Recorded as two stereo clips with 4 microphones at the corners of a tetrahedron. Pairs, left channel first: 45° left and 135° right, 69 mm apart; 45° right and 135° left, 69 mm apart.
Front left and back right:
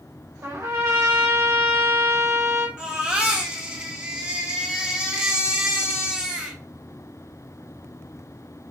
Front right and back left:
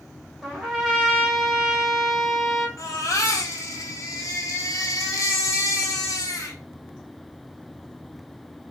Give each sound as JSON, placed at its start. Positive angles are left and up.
{"t": 0.4, "sound": "a trumpet", "azimuth_deg": -140, "distance_m": 1.8}
{"t": 2.8, "sound": "a baby crying", "azimuth_deg": -65, "distance_m": 1.3}